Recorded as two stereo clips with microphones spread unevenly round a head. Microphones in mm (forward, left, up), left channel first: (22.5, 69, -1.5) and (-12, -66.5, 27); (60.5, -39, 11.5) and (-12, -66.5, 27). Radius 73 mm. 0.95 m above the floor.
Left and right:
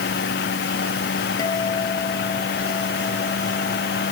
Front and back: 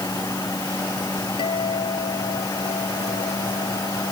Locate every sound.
0.0 s a fan: 90° left
1.4 s a guitar: 10° left